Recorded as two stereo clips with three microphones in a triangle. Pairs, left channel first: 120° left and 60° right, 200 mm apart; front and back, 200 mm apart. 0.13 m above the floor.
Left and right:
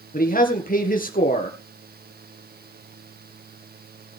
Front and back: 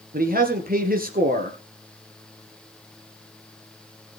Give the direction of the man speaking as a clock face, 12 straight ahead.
7 o'clock.